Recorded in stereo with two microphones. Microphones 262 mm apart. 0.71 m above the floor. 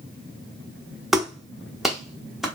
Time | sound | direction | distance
1.1 | a clap | centre (ahead or behind) | 1.0 m